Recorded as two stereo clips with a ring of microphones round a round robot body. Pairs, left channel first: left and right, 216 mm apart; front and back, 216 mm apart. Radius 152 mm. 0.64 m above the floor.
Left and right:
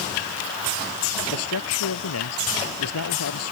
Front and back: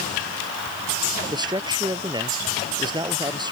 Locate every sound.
1.3 s a man speaking: 110° left